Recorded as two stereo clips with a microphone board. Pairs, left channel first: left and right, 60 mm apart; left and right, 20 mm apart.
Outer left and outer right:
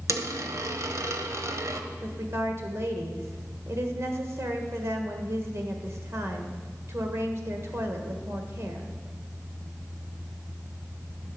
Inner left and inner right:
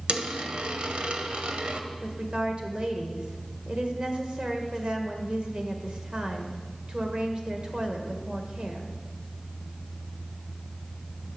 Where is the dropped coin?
60° right (ahead or behind), 0.9 m.